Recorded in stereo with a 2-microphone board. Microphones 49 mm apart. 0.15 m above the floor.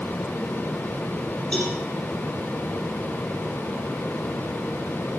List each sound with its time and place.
1.5 s a cowbell: 20° left (ahead or behind), 4 m